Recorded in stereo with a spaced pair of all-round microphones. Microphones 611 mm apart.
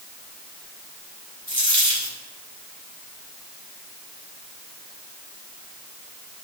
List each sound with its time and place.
1.5 s a dropped coin: 25° right (ahead or behind), 1.9 m